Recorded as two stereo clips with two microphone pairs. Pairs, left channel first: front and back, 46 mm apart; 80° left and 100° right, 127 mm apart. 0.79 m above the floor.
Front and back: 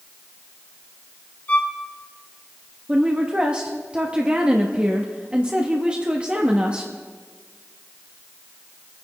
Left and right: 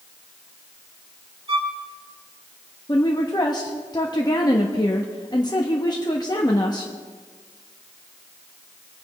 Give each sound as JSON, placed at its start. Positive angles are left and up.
{"t": 1.5, "sound": "a violin", "azimuth_deg": -55, "distance_m": 1.5}
{"t": 2.9, "sound": "a woman speaking", "azimuth_deg": 125, "distance_m": 1.0}